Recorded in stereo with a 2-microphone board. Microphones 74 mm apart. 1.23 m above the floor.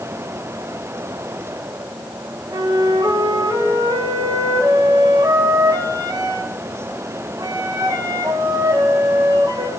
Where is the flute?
65° right (ahead or behind), 1.4 m.